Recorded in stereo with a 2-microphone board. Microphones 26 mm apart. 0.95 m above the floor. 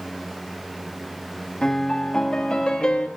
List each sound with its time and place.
1.6 s a piano: 35° left (ahead or behind), 1.5 m